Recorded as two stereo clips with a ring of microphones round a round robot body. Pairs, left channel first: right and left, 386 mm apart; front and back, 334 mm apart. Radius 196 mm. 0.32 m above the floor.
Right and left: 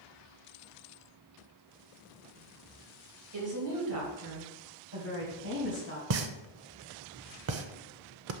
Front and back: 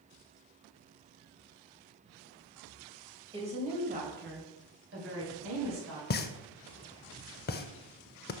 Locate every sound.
3.3 s a woman speaking: 110° left, 2 m; by 6.0 s 145° left, 3 m
6.1 s a pop: 50° left, 0.5 m